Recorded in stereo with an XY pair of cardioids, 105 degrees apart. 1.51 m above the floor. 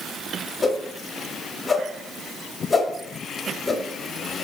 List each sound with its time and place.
0.6 s a whoosh: 30° left, 0.6 m